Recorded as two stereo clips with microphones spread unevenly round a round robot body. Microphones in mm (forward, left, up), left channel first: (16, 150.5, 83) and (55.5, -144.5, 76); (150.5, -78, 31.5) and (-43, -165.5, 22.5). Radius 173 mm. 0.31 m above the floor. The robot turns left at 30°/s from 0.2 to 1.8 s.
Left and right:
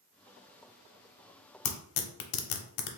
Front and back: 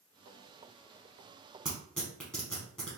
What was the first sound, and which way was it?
Tearing paper, 115° left.